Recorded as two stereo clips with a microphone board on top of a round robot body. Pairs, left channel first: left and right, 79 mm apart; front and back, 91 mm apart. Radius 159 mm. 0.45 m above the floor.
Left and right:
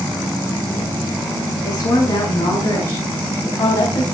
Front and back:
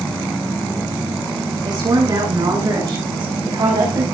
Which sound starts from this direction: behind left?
A woman speaking, at 1.6 s.